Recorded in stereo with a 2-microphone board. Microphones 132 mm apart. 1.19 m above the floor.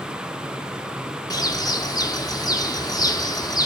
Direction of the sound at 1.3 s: 30° left (ahead or behind).